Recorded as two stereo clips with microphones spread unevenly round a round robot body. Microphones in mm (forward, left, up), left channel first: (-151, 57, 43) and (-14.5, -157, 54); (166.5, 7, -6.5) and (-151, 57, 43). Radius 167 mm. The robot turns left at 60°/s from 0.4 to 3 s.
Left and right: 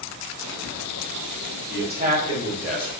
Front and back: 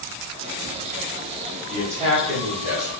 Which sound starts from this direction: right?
A man speaking, at 1.7 s.